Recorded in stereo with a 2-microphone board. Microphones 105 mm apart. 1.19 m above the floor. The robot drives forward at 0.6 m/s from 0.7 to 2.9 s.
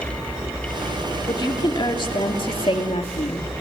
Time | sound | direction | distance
1.3 | a woman speaking | 45° left (ahead or behind) | 2.5 m